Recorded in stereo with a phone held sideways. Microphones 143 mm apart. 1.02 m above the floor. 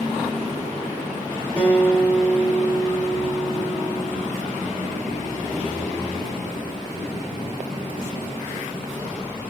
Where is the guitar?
15° left (ahead or behind), 1.3 m.